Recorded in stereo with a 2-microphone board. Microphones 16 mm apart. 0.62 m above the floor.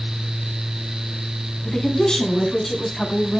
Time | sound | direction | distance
1.6 | a woman speaking | 40° left (ahead or behind) | 6 m